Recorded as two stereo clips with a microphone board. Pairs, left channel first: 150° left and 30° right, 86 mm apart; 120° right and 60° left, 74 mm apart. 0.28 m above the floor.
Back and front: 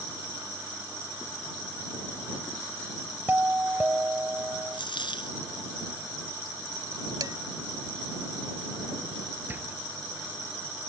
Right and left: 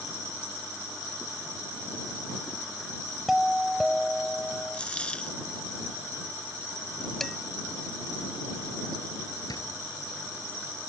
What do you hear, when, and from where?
3.3 s a doorbell: 20° right
4.7 s a dropped coin: 165° left
7.2 s dishes clattering: 35° right
9.5 s a door slam: 95° right